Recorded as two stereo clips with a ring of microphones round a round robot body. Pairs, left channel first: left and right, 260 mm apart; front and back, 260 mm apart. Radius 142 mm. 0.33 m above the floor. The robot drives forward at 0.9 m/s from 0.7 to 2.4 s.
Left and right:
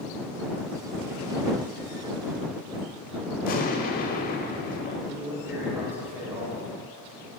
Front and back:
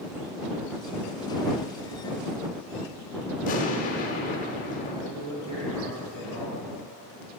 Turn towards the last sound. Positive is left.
turn(degrees=-170)